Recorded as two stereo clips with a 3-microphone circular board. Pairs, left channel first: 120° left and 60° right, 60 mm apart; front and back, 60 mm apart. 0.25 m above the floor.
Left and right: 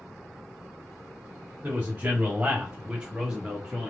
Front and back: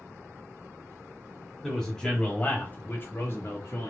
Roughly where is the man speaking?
Right.